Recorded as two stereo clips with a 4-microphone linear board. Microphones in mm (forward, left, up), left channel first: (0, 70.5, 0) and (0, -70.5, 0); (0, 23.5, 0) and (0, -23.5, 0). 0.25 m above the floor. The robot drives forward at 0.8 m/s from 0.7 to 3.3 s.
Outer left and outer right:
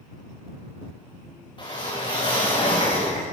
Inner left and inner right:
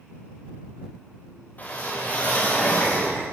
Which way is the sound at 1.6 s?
35° left (ahead or behind).